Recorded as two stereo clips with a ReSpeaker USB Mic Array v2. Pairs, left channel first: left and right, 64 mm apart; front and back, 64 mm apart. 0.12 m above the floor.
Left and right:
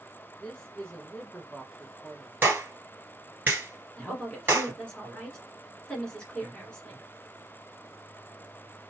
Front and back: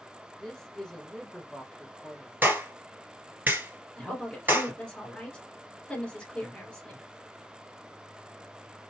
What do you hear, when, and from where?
0.4 s a man speaking: 55° left, 1.1 m
2.4 s a clap: 135° right, 1.9 m
4.0 s a woman speaking: 40° left, 1.5 m